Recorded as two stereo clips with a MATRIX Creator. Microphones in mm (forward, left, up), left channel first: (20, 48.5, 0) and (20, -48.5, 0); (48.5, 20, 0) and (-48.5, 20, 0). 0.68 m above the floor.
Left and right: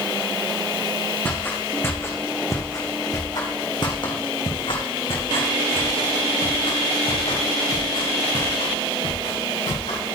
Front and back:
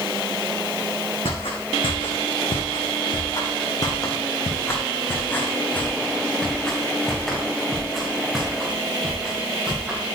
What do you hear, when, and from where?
1.2 s footsteps: 20° left, 3.5 m; by 10.0 s 100° left, 5.5 m